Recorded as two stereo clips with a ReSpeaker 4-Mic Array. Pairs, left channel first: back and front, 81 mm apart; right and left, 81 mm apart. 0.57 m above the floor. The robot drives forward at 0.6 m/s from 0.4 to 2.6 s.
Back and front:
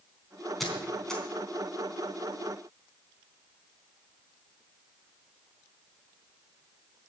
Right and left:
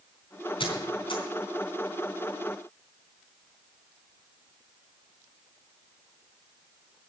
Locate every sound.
0.6 s a squeak: 90° right, 3.5 m; by 1.2 s 95° right, 3.5 m